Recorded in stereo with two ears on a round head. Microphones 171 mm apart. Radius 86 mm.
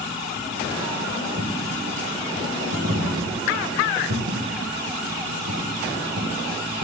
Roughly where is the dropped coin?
Right.